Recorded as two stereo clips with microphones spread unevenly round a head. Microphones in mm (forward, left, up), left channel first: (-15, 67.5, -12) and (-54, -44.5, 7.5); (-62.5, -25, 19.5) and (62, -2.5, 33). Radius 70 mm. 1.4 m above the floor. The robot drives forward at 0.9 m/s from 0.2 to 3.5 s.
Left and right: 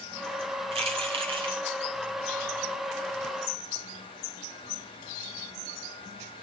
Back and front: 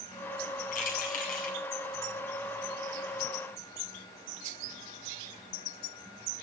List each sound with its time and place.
0.7 s keys jangling: 145° right, 2.5 m; by 1.6 s 150° right, 3 m